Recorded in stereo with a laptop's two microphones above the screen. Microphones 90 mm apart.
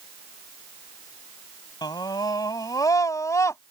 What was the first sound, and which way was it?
A scream, 50° left (ahead or behind).